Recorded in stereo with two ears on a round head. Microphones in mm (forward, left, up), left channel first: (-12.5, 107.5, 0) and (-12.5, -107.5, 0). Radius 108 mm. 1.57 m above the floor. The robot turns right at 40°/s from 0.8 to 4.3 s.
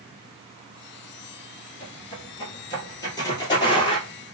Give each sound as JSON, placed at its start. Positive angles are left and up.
{"t": 1.8, "sound": "footsteps", "side_deg": 25, "distance_m": 1.7}